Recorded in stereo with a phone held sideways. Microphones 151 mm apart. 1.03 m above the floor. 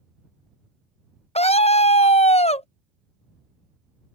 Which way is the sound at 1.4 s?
45° left (ahead or behind).